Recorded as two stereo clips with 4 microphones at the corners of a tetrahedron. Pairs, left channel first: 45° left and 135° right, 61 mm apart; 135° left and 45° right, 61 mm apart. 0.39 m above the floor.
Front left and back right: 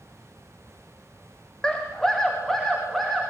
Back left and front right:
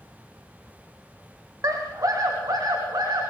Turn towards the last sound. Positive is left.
turn(degrees=-45)